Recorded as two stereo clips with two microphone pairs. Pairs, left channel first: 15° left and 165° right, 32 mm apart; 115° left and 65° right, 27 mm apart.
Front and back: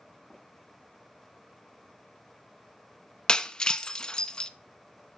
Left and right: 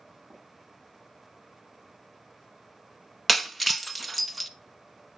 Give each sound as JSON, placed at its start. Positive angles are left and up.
{"t": 0.3, "sound": "tapping", "azimuth_deg": -50, "distance_m": 6.5}
{"t": 3.3, "sound": "breaking glass", "azimuth_deg": 25, "distance_m": 0.7}